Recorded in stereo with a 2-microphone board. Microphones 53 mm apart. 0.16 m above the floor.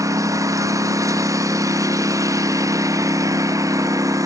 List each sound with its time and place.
0.0 s a lawn mower: 85° right; by 4.3 s 90° right